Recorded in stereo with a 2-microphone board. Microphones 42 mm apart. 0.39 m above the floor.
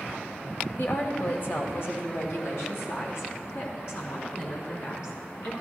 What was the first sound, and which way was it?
A woman speaking, 40° left (ahead or behind).